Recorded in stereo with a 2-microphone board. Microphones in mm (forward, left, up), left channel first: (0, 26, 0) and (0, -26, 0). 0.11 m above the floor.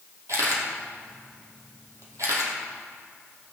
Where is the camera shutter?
70° right (ahead or behind), 3 m.